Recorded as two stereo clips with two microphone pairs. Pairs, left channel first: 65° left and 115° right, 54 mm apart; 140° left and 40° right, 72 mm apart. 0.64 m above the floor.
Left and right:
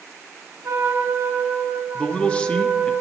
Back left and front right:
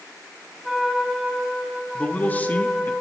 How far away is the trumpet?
About 5 m.